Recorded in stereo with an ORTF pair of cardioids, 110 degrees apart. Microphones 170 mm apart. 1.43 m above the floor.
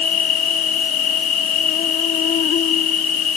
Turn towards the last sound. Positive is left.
turn(degrees=55)